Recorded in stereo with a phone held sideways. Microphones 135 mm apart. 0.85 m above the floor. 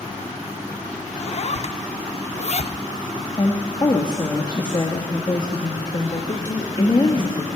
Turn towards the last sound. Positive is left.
turn(degrees=30)  # may be behind; listen again after turning